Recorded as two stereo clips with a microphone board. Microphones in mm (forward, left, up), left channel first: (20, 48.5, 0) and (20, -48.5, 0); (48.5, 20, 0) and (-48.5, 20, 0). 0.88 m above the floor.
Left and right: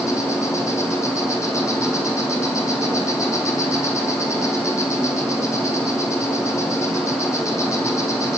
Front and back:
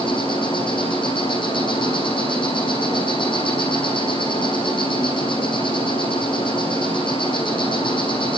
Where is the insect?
30° left, 7.5 m.